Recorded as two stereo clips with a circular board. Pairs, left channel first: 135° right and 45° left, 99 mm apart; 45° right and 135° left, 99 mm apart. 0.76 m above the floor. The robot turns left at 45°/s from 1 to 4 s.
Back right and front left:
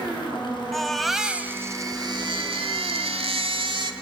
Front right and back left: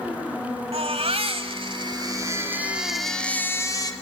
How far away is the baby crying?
About 1.9 m.